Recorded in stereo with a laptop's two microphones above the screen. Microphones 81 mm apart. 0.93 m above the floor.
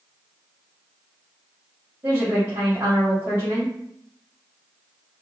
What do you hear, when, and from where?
2.0 s a woman speaking: 45° right (ahead or behind), 1.4 m